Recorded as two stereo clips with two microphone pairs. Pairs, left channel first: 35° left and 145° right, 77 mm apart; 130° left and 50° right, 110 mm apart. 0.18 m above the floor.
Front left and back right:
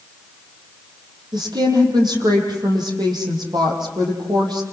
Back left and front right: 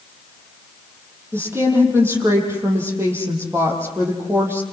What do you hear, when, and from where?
1.3 s a woman speaking: 120° right, 7.5 m